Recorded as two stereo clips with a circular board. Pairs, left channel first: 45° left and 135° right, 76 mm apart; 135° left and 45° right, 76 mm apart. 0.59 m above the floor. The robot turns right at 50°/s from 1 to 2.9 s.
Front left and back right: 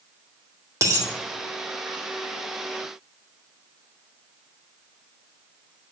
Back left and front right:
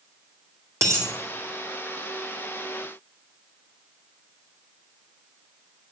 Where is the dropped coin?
95° right, 2.5 m; by 1.1 s 90° right, 2.5 m.